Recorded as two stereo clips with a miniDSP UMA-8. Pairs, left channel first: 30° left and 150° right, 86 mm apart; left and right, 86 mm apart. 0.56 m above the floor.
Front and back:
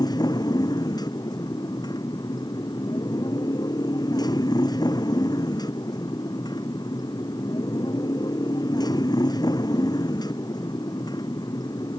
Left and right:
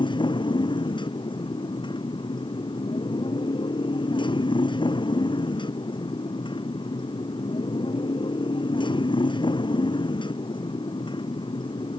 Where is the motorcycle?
70° left.